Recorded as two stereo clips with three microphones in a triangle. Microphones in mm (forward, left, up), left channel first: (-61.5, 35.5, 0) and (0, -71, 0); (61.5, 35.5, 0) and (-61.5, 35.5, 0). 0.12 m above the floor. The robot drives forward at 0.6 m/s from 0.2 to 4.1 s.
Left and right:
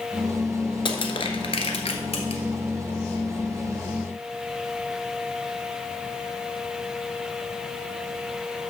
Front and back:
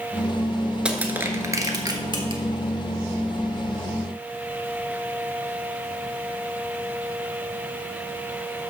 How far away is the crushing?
About 1.2 m.